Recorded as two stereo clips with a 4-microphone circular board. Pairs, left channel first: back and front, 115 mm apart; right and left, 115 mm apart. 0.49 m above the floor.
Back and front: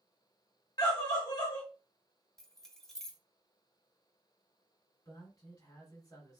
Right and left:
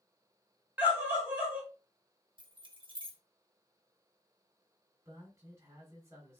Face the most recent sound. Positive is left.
turn(degrees=140)